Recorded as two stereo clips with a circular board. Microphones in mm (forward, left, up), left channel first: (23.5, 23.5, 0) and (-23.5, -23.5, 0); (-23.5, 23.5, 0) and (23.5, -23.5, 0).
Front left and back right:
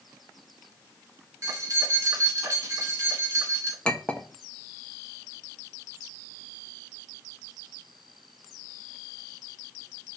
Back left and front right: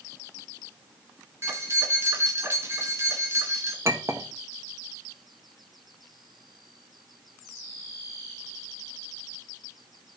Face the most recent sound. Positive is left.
turn(degrees=-25)